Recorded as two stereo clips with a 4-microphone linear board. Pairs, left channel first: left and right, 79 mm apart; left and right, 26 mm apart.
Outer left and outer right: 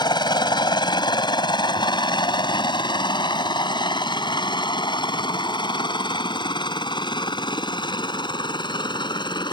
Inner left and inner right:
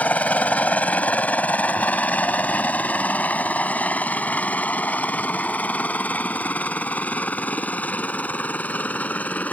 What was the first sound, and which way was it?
A helicopter, 65° left (ahead or behind).